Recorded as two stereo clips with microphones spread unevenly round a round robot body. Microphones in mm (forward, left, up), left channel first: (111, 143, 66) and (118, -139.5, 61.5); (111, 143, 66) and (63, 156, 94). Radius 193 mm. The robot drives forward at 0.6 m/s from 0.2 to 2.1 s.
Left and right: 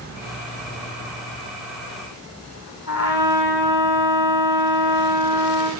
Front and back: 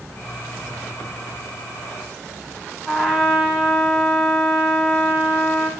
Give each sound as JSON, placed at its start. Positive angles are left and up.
{"t": 2.9, "sound": "a trumpet", "azimuth_deg": 115, "distance_m": 0.9}